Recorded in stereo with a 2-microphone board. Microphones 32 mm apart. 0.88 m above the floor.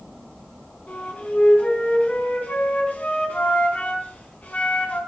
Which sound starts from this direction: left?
A flute, at 0.9 s.